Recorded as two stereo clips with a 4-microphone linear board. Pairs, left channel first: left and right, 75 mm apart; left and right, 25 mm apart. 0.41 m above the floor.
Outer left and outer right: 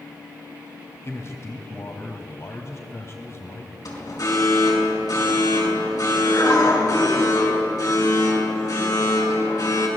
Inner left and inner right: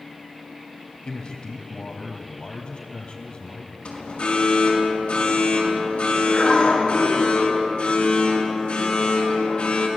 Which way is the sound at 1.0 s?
40° left (ahead or behind).